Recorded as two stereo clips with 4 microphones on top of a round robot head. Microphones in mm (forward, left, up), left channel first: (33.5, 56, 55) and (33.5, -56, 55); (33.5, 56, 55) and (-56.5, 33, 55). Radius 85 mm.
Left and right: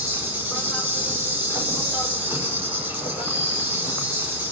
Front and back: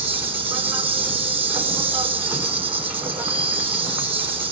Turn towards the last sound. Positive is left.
turn(degrees=-160)